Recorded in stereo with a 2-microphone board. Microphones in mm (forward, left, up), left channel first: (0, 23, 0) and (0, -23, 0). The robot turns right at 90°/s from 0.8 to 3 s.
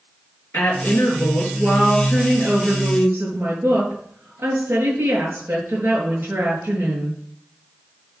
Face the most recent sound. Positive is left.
turn(degrees=-125)